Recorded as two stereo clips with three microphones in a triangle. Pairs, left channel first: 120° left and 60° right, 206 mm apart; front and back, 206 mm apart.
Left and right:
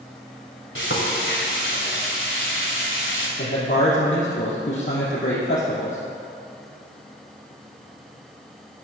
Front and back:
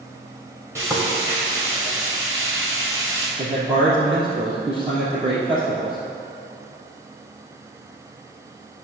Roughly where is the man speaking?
Behind left.